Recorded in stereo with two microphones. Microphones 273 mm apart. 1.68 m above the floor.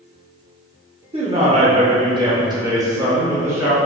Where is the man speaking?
20° right (ahead or behind), 0.6 m; by 3.8 s 10° right (ahead or behind), 1.4 m.